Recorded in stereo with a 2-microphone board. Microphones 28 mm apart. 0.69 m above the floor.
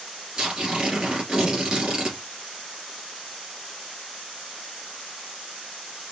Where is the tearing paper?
25° right (ahead or behind), 2.5 m.